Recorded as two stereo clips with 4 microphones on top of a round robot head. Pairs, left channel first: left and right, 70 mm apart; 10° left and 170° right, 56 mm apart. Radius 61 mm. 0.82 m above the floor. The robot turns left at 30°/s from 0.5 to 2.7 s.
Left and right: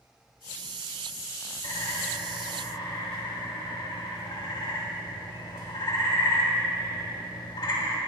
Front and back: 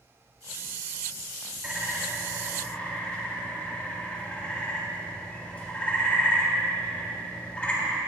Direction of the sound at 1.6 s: 115° left.